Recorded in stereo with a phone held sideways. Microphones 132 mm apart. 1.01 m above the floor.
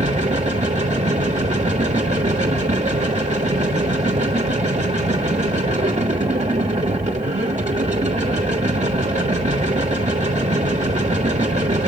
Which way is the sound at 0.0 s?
60° right (ahead or behind).